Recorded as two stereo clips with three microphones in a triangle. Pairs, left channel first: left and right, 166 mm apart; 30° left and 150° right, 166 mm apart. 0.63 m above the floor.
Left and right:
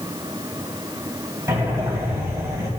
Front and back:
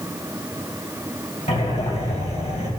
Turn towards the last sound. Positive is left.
turn(degrees=-20)